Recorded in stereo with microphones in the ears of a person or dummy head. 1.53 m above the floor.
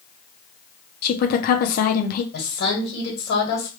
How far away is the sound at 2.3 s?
About 1.9 m.